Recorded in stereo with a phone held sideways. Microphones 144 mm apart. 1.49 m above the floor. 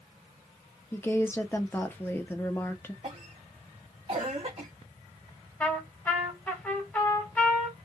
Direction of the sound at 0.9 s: 15° left (ahead or behind).